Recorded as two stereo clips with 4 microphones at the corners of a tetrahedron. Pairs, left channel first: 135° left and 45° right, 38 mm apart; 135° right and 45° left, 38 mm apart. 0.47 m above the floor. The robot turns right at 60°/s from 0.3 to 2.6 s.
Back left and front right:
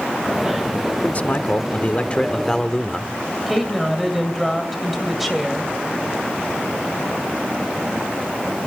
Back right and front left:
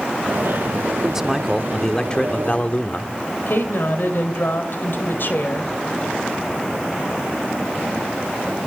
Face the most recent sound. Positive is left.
turn(degrees=-130)